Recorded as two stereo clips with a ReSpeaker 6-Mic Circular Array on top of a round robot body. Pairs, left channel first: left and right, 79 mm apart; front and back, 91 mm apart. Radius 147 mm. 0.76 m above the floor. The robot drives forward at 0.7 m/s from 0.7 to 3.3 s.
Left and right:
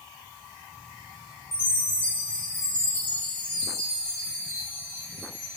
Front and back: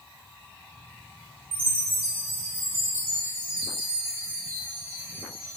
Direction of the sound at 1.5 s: 155° left.